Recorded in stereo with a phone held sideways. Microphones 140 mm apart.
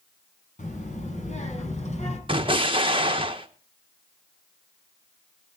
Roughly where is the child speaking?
Left.